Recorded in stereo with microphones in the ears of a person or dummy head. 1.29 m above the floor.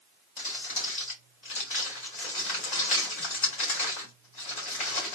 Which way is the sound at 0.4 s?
40° left (ahead or behind).